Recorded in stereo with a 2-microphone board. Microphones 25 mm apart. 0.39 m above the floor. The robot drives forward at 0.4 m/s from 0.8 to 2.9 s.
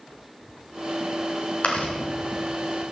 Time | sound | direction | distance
1.6 | chewing | 80° left | 4 m